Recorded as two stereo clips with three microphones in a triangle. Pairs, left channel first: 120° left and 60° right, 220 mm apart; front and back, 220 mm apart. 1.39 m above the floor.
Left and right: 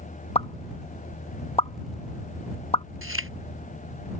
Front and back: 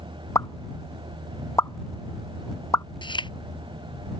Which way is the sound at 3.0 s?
65° right.